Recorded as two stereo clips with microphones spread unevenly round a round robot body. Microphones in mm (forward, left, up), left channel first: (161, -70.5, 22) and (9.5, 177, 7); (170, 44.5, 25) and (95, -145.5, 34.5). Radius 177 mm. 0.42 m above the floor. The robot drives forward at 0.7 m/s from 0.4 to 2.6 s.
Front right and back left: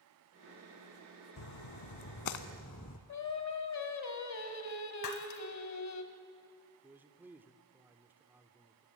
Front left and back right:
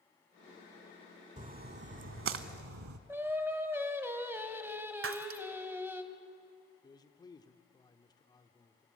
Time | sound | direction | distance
1.4 | a splash | 55° right | 0.9 m
3.1 | singing | 30° right | 1.7 m
5.0 | breaking glass | 105° right | 1.2 m
6.8 | a man speaking | 55° left | 0.9 m